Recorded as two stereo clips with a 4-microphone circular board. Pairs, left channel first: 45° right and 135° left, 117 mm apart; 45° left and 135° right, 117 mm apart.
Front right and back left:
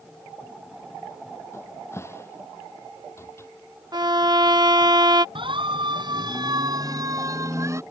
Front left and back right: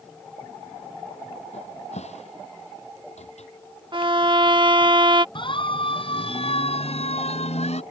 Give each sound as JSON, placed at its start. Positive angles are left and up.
{"t": 1.5, "sound": "a cupboard door", "azimuth_deg": 25}
{"t": 3.9, "sound": "a violin", "azimuth_deg": -175}
{"t": 5.3, "sound": "a siren", "azimuth_deg": 90}